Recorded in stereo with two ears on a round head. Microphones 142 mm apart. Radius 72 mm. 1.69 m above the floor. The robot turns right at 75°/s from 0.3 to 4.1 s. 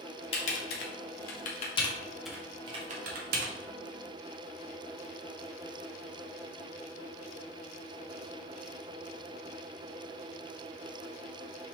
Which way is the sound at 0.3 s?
35° left (ahead or behind).